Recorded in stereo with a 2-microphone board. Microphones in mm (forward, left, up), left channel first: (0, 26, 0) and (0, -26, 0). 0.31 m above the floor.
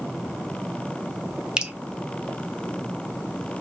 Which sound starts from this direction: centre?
Dripping, at 1.6 s.